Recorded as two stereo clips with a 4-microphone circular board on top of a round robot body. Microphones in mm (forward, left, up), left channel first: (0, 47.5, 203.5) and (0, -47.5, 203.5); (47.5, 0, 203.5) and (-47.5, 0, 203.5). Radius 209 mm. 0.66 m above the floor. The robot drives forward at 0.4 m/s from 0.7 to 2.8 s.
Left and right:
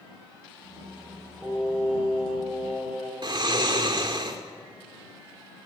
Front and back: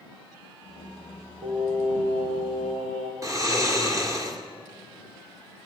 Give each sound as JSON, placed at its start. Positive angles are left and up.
{"t": 1.4, "sound": "singing", "azimuth_deg": -165, "distance_m": 6.0}
{"t": 3.2, "sound": "snoring", "azimuth_deg": -125, "distance_m": 2.5}